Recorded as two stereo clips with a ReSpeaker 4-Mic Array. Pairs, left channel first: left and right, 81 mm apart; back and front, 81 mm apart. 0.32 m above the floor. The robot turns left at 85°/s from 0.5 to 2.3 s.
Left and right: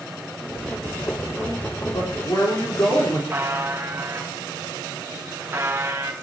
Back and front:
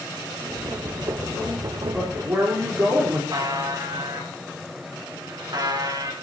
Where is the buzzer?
30° right, 2.5 m.